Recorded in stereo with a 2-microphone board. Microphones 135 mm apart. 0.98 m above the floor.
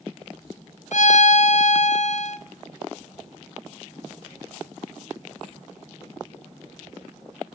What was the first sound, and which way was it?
A violin, 60° left (ahead or behind).